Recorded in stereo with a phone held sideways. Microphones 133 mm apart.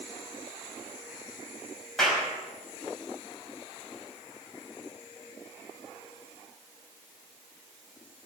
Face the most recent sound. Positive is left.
turn(degrees=5)  # may be behind; listen again after turning